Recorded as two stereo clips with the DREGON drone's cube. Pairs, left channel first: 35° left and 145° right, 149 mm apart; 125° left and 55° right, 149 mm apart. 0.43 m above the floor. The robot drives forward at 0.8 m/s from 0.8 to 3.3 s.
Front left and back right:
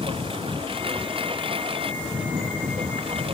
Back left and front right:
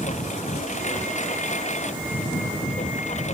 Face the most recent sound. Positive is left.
turn(degrees=160)